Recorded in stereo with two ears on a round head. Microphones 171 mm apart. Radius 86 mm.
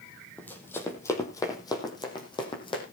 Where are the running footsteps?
10° left (ahead or behind), 3.5 m; by 2.8 s 30° left (ahead or behind), 5 m.